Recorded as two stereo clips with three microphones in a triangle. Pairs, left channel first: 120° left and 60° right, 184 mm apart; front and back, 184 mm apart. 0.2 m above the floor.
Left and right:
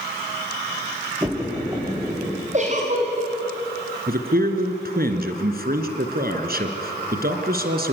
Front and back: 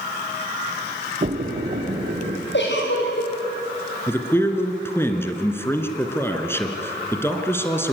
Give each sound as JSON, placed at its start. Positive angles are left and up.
{"t": 1.2, "sound": "a splash", "azimuth_deg": -130, "distance_m": 5.5}
{"t": 2.5, "sound": "a giggle", "azimuth_deg": -10, "distance_m": 6.5}
{"t": 4.1, "sound": "a man speaking", "azimuth_deg": -75, "distance_m": 2.5}